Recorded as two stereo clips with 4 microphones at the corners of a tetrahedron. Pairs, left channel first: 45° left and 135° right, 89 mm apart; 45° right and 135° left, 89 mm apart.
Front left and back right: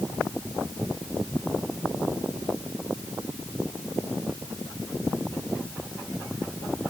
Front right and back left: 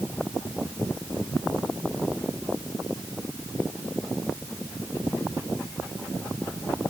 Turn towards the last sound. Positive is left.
No sound to turn to.